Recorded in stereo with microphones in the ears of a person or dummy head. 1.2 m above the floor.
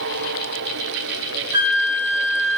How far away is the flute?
About 1.6 m.